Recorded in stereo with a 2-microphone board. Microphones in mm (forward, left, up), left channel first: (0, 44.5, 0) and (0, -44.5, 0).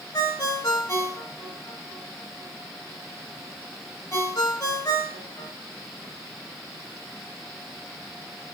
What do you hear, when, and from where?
0.1 s a ringtone: 40° left (ahead or behind), 1.2 m